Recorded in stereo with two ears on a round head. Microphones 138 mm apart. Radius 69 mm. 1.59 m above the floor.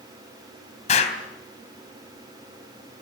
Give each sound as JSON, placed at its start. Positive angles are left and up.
{"t": 0.9, "sound": "an explosion", "side_deg": 45, "distance_m": 3.5}